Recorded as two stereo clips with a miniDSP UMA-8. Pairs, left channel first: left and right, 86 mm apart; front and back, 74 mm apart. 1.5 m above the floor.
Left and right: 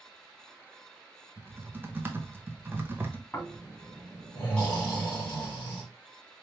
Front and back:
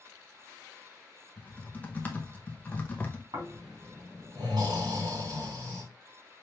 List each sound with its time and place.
1.4 s typing on a keyboard: 50° right, 0.7 m
3.3 s snoring: 165° left, 2.5 m